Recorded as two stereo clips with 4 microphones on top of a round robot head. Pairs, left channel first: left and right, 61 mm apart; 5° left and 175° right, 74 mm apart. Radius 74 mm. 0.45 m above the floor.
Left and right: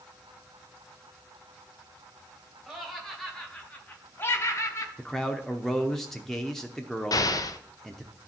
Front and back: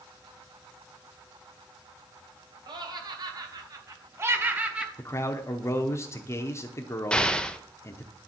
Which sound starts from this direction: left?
An explosion, at 7.1 s.